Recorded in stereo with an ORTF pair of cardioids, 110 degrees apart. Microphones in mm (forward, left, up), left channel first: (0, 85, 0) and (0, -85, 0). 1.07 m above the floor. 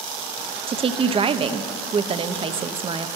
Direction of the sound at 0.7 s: 35° right.